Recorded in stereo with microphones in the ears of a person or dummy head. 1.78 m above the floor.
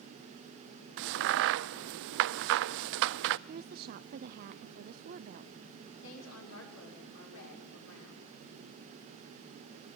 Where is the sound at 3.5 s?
50° right (ahead or behind), 0.7 m.